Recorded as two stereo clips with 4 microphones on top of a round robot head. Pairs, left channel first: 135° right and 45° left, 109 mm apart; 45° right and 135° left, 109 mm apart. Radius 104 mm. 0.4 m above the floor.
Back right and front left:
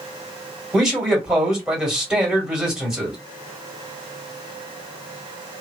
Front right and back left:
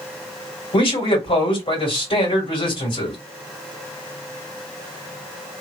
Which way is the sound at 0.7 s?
35° right.